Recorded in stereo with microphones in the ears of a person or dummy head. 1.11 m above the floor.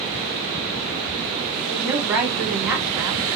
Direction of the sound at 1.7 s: 10° right (ahead or behind).